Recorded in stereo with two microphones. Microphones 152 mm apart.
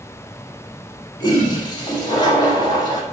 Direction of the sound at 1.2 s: 30° left (ahead or behind).